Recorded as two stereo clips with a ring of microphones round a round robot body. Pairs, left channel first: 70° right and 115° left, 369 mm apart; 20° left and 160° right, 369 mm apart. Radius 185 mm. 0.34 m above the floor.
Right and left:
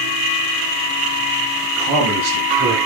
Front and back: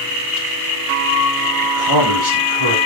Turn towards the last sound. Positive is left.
turn(degrees=-175)